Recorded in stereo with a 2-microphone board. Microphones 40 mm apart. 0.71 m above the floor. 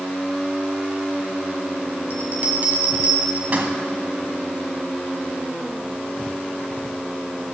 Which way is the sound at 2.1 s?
45° right (ahead or behind).